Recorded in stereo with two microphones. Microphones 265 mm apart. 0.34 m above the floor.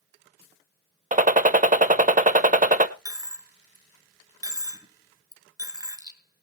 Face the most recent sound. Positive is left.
turn(degrees=-15)  # may be behind; listen again after turning